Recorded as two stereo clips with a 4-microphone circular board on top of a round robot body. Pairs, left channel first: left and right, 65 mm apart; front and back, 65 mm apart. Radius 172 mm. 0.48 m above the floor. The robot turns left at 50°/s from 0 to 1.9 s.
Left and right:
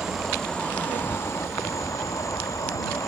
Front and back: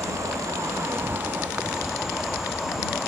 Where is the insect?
170° right; by 3.1 s 95° left.